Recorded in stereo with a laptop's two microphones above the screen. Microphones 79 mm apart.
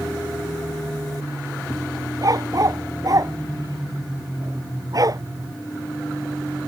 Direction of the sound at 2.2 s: 50° right (ahead or behind).